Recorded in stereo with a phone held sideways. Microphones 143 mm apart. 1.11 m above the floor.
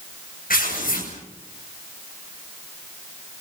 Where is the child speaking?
I don't hear a child speaking.